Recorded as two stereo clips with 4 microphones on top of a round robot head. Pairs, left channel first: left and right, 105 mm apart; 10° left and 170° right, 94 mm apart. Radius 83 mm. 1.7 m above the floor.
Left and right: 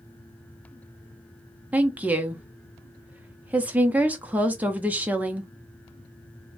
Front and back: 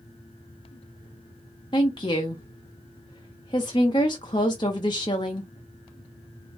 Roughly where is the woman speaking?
Ahead right.